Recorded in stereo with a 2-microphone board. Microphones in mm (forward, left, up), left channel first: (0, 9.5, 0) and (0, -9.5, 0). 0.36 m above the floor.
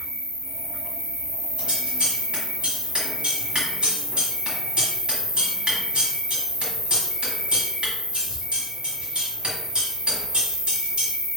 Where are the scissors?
55° right (ahead or behind), 1.5 m.